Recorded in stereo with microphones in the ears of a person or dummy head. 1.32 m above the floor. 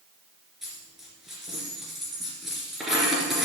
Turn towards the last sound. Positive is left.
turn(degrees=0)  # may be behind; listen again after turning